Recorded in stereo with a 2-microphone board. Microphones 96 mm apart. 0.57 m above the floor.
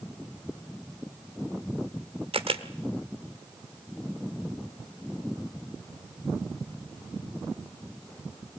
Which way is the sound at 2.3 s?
65° right (ahead or behind).